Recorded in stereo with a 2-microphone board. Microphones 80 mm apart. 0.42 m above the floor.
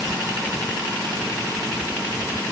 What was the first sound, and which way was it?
Only background noise.